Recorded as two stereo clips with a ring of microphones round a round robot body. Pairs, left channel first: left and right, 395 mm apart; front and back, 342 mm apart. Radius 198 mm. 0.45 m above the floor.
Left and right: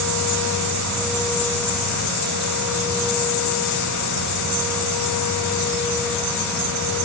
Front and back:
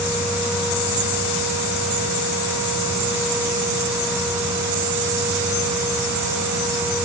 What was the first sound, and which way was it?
Only background noise.